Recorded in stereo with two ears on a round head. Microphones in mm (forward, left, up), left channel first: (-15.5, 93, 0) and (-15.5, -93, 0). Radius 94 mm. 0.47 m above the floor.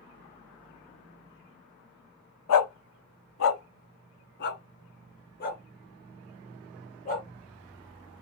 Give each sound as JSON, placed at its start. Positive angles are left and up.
{"t": 2.5, "sound": "a dog barking", "side_deg": 75, "distance_m": 0.8}